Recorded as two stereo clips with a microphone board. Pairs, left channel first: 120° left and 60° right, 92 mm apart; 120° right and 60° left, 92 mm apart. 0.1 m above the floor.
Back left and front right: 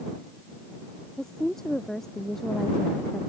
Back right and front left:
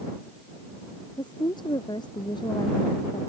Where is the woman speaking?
155° right.